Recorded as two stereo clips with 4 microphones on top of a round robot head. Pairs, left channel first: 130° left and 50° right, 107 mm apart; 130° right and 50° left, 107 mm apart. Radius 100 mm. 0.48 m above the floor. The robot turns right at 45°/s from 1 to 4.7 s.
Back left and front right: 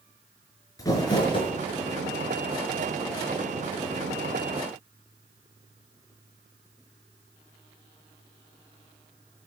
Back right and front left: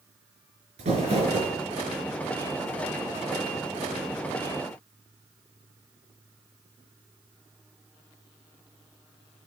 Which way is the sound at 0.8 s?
70° left.